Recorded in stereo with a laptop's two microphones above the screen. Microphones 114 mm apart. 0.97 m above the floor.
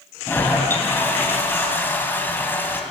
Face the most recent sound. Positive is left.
turn(degrees=20)  # may be behind; listen again after turning